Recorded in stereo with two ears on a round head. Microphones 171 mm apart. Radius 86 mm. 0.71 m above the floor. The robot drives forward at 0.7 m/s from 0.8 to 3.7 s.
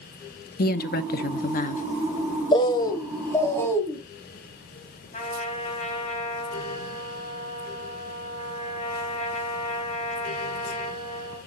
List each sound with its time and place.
0.6 s a woman speaking: 50° left (ahead or behind), 0.8 m; by 1.8 s 40° left (ahead or behind), 1.0 m
2.5 s a bird: 25° left (ahead or behind), 0.9 m; by 4.0 s 15° left (ahead or behind), 1.7 m
5.1 s a trumpet: 40° left (ahead or behind), 3 m